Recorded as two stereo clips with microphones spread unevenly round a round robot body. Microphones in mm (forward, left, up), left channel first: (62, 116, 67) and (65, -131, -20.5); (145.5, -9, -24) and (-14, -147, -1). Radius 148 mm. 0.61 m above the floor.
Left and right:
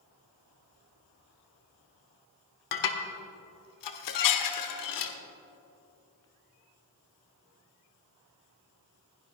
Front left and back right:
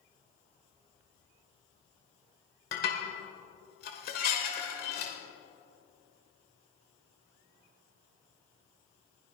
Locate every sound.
2.7 s dishes clattering: 100° left, 1.3 m